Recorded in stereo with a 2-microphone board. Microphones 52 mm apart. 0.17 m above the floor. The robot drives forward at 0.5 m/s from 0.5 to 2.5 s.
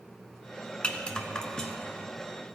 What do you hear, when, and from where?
0.8 s a rattle: 20° left (ahead or behind), 0.6 m; by 2.0 s 10° left (ahead or behind), 1.1 m